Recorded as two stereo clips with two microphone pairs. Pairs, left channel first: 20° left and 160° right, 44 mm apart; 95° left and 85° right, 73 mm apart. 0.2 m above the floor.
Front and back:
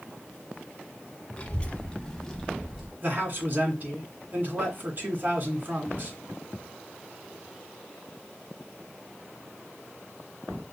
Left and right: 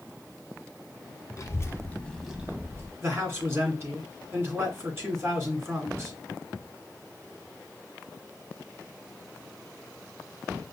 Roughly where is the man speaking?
Behind right.